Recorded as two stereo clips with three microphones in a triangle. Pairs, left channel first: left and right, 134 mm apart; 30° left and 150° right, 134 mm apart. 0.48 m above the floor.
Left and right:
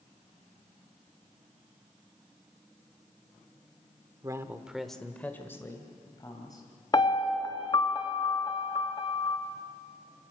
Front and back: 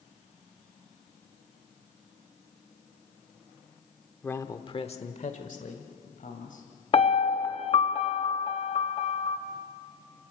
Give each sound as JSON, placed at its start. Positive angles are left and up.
{"t": 4.2, "sound": "a man speaking", "azimuth_deg": -45, "distance_m": 0.9}
{"t": 6.9, "sound": "a piano", "azimuth_deg": 50, "distance_m": 1.1}